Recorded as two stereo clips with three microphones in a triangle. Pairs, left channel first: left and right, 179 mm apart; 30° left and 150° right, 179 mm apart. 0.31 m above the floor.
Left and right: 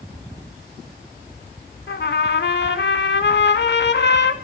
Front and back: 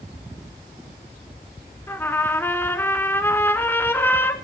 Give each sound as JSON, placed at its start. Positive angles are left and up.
{"t": 1.9, "sound": "a trumpet", "azimuth_deg": 105, "distance_m": 0.7}